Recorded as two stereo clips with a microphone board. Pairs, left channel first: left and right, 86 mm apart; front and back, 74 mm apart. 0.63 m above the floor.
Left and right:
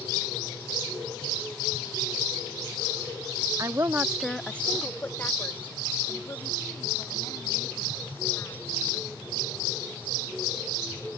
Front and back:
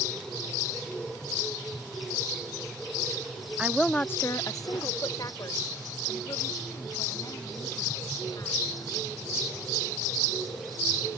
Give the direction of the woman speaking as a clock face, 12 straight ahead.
4 o'clock.